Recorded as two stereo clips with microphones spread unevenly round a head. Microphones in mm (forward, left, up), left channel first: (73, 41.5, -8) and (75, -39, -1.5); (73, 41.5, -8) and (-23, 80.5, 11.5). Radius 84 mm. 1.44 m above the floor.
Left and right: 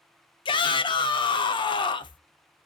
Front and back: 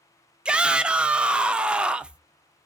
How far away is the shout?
About 0.6 m.